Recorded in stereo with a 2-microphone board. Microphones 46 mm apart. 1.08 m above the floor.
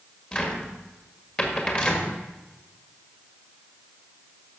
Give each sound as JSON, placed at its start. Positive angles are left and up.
{"t": 0.3, "sound": "a cupboard door", "side_deg": 25, "distance_m": 1.8}